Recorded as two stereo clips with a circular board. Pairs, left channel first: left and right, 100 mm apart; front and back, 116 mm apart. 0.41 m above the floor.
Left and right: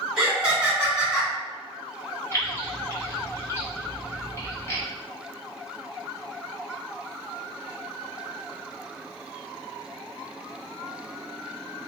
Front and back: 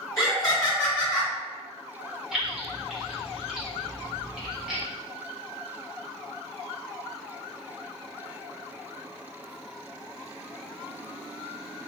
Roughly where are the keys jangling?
Left.